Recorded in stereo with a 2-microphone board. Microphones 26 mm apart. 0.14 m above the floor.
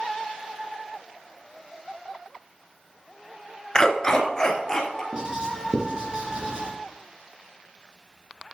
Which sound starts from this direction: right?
Writing, at 5.1 s.